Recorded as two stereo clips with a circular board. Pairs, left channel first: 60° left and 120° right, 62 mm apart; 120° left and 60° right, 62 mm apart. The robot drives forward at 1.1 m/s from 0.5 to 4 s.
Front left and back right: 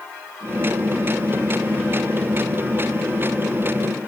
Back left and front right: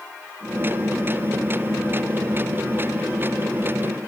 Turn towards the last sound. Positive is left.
No sound to turn to.